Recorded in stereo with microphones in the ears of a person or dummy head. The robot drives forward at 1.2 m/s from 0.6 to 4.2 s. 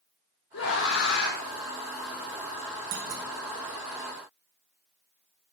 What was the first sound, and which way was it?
A scream, 70° left (ahead or behind).